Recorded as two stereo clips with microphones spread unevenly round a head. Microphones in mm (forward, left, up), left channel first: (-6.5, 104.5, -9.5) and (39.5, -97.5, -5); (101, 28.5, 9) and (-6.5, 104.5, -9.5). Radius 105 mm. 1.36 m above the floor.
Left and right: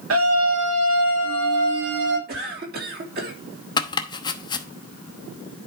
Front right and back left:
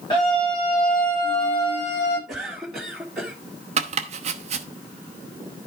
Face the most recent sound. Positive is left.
turn(degrees=165)